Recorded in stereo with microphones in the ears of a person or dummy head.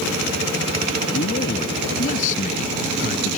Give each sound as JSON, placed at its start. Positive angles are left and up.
{"t": 1.1, "sound": "a man speaking", "side_deg": 45}